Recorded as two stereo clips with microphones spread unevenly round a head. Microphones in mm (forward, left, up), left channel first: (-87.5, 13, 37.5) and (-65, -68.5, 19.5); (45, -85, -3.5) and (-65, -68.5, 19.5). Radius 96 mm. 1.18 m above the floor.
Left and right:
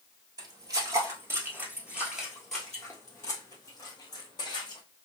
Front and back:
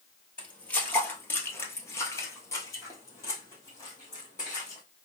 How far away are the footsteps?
About 1.4 m.